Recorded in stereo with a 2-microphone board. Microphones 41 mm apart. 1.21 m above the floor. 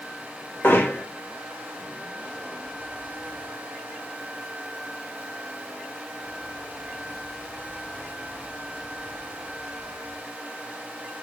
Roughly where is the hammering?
Left.